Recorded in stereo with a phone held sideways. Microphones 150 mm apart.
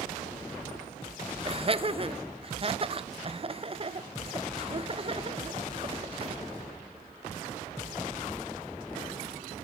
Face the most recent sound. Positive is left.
turn(degrees=-40)  # may be behind; listen again after turning